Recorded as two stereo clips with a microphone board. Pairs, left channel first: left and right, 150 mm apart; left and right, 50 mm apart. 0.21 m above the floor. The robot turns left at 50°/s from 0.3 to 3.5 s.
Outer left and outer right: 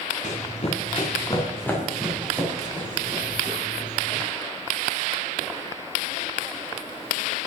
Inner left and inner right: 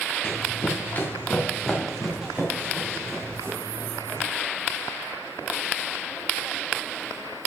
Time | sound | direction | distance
0.2 | running footsteps | 55° left (ahead or behind) | 2.5 m